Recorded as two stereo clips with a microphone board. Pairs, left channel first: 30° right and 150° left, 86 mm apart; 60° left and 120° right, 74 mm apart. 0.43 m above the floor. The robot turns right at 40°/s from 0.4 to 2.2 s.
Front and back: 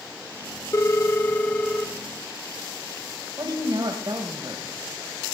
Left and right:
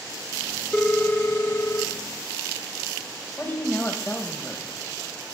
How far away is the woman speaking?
About 1.8 m.